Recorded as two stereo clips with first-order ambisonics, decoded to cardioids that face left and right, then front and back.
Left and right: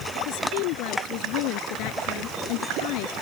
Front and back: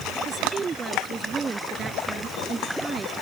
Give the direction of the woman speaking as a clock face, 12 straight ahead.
8 o'clock.